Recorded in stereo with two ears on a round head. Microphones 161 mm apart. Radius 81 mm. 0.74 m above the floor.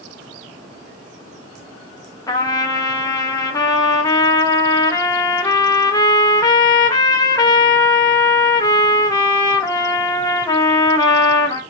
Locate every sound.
2.3 s a trumpet: 20° left (ahead or behind), 0.7 m